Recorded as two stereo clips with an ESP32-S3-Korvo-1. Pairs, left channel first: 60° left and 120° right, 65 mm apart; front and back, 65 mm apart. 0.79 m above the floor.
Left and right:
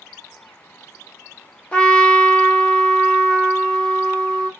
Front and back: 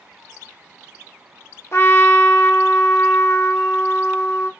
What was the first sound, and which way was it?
A trumpet, 5° right.